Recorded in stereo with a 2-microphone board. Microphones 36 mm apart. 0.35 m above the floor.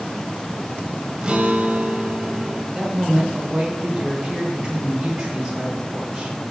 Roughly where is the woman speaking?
Centre.